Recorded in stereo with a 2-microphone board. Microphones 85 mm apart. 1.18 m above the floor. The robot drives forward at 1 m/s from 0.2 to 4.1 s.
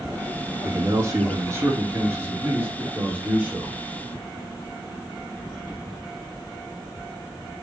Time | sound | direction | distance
0.6 | a man speaking | 40° right (ahead or behind) | 2.5 m